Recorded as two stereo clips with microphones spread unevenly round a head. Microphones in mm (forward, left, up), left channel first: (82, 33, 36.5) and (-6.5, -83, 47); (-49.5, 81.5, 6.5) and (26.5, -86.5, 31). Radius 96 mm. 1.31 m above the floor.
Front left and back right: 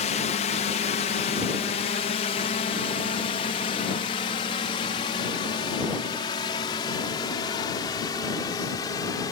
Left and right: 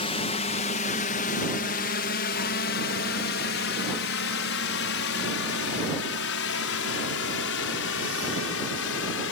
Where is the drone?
65° left; by 9.3 s 125° left.